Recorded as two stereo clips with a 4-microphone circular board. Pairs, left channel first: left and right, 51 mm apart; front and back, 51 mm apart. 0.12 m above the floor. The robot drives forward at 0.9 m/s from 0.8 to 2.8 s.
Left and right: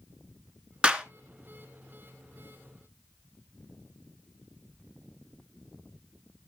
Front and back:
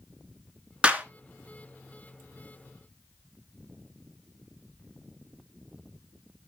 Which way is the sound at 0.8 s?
140° right.